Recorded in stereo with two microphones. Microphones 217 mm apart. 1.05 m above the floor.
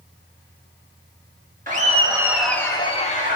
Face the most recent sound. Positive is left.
turn(degrees=40)  # may be behind; listen again after turning